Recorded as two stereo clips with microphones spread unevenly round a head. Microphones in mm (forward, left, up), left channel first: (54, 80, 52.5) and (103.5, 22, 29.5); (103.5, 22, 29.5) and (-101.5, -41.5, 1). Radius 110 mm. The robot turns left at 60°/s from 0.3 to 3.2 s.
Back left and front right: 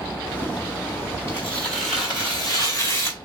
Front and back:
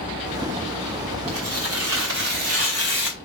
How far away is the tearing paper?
About 2 m.